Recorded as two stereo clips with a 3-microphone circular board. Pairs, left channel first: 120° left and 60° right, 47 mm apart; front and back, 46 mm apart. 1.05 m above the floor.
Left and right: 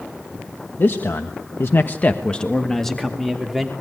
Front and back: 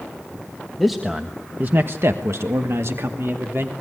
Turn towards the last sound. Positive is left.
turn(degrees=-145)